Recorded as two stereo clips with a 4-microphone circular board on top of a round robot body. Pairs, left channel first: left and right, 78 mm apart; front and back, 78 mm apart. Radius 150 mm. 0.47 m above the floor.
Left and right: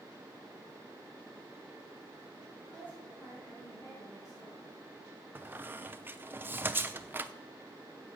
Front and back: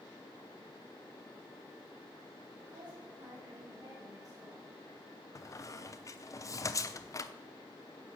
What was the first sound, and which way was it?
A woman speaking, 160° left.